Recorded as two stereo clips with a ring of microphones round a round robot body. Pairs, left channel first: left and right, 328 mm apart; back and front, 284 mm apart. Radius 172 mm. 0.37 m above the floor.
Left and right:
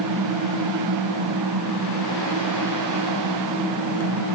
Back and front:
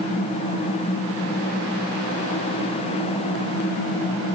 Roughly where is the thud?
No thud in this recording.